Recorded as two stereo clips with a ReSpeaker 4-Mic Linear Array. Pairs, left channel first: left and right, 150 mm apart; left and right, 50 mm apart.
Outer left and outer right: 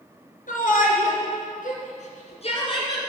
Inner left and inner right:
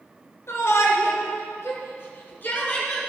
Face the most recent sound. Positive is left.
turn(degrees=30)  # may be behind; listen again after turning